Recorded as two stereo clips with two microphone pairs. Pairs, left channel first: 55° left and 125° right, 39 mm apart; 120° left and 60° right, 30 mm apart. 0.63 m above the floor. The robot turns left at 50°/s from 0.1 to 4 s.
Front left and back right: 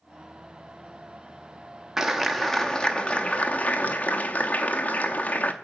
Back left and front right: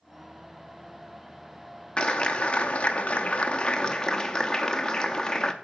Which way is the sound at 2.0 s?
160° left.